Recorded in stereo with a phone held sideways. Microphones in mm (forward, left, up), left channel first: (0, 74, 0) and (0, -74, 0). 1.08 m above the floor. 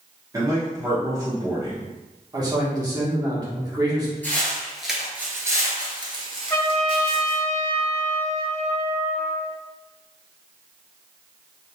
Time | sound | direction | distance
0.3 | a man speaking | 25° right (ahead or behind) | 0.8 m
2.3 | a man speaking | 25° right (ahead or behind) | 1.3 m
4.2 | footsteps | 15° left (ahead or behind) | 1.2 m
6.5 | a trumpet | 20° left (ahead or behind) | 1.0 m